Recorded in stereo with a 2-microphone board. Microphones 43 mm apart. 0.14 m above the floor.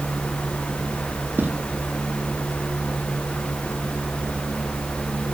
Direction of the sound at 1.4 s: 50° right (ahead or behind).